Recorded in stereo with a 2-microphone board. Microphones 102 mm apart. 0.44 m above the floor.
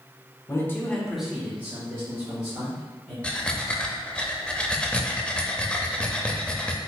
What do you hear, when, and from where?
0.5 s a man speaking: 30° left (ahead or behind), 0.9 m; by 3.1 s 35° right (ahead or behind), 2.5 m
3.2 s breathing: 10° left (ahead or behind), 0.5 m